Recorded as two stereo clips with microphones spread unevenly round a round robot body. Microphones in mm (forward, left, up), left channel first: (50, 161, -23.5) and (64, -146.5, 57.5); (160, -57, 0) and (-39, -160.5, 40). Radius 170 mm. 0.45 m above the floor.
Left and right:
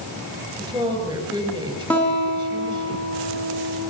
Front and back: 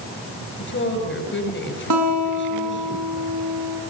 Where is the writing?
No writing in this recording.